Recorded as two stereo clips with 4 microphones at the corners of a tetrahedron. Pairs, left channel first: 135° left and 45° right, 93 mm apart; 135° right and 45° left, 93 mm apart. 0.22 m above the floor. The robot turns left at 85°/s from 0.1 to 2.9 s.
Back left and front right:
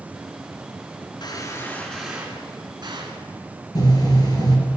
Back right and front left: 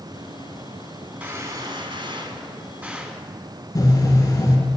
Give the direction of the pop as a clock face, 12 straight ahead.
6 o'clock.